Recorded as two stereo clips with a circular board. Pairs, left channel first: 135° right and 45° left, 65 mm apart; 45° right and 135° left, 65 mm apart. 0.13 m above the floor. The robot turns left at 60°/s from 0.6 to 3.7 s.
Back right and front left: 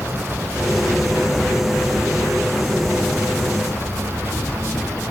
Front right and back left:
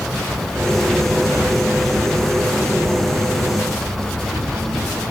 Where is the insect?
40° left, 2 m; by 5.1 s 145° right, 2 m.